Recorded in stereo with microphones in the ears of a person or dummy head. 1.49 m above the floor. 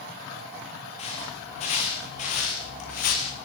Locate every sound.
1.0 s footsteps: 35° left (ahead or behind), 8 m; by 3.4 s 50° left (ahead or behind), 7.5 m